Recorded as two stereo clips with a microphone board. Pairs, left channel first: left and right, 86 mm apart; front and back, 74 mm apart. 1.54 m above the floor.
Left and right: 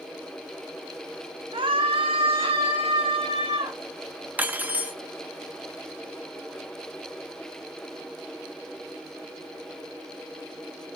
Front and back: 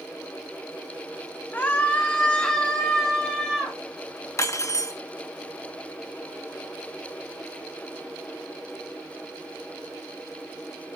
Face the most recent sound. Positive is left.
turn(degrees=-25)